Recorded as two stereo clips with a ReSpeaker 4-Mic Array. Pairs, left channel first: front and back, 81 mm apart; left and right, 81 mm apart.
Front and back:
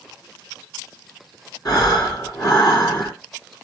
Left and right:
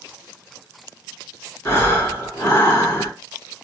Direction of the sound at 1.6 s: 30° left.